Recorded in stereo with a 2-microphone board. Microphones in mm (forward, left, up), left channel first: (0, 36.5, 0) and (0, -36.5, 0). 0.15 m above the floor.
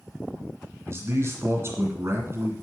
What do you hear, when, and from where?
0.9 s a man speaking: 35° right (ahead or behind), 1.7 m